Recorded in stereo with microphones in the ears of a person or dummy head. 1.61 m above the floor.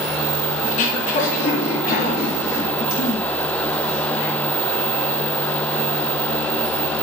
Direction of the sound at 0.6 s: 35° left (ahead or behind).